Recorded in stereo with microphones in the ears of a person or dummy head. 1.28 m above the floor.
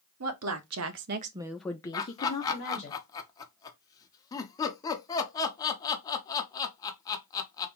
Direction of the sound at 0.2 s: 80° right.